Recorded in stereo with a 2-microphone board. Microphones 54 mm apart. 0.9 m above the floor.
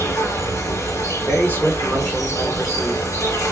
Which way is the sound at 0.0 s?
70° left (ahead or behind).